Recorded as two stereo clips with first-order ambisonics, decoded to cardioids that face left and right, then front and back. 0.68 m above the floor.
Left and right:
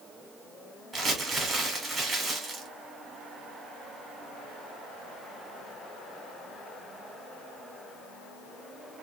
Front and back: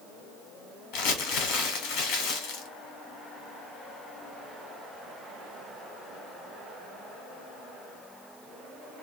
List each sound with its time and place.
0.9 s crumpling: 10° right, 0.9 m